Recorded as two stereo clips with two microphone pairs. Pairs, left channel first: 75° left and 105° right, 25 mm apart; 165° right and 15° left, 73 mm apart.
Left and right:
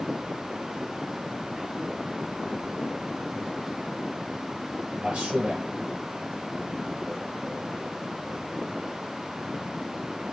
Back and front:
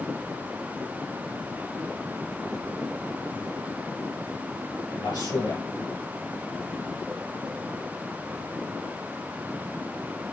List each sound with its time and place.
5.0 s a man speaking: 140° right, 5.5 m